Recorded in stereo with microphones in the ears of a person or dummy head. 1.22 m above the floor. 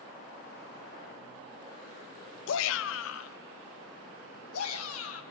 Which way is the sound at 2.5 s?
70° left (ahead or behind).